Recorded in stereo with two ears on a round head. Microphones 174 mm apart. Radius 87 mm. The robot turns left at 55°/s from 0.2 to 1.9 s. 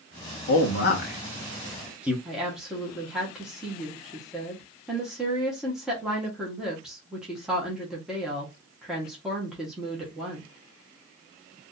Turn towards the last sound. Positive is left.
turn(degrees=-5)  # may be behind; listen again after turning